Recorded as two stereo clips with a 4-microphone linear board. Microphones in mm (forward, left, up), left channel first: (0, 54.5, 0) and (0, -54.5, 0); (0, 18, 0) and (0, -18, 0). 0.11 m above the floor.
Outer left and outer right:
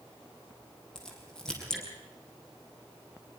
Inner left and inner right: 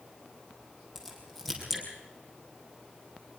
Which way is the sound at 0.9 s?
5° left (ahead or behind).